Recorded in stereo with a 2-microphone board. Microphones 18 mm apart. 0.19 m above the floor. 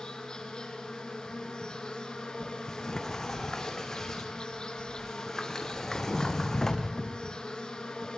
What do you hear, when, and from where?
0.0 s an insect: 45° left (ahead or behind), 4 m
2.4 s a sliding door: 25° left (ahead or behind), 2.5 m